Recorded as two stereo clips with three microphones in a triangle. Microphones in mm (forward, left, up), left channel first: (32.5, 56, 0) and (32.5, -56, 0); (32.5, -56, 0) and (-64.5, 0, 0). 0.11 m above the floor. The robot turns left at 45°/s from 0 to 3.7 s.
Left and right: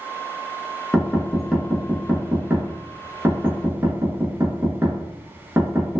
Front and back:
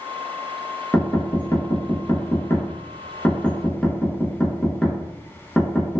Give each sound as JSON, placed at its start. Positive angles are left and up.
{"t": 0.9, "sound": "knocking", "azimuth_deg": 20, "distance_m": 0.8}